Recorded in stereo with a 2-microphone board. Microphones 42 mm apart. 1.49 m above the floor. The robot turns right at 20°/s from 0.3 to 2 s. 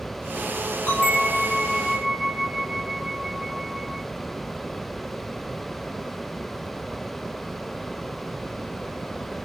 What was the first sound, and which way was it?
A bell, 45° left (ahead or behind).